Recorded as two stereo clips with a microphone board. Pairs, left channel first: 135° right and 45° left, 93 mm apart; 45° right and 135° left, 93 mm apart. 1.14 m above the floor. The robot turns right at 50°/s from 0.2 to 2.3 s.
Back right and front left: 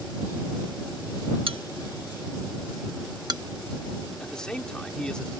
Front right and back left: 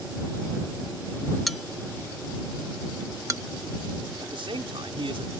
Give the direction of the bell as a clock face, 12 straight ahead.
11 o'clock.